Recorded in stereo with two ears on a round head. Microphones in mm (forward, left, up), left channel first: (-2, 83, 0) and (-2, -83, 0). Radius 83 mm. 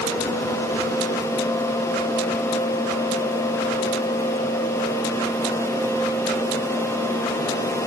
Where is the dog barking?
No dog barking in this recording.